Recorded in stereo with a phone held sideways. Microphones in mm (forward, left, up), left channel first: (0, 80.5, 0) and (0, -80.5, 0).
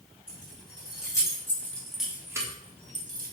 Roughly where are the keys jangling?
Left.